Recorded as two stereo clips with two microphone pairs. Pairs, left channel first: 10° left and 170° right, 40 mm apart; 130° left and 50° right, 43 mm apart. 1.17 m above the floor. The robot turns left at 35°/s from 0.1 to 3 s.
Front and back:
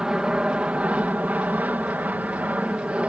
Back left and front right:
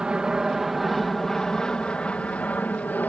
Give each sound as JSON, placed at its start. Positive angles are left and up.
{"t": 0.0, "sound": "an aircraft", "azimuth_deg": -110}